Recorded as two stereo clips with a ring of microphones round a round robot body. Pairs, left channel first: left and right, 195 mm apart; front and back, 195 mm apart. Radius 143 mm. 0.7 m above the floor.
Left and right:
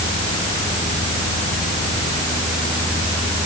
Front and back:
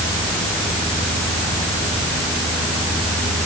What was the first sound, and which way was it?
Only background noise.